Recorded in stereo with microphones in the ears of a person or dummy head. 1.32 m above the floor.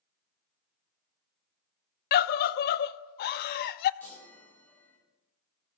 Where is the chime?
15° left (ahead or behind), 3.5 m.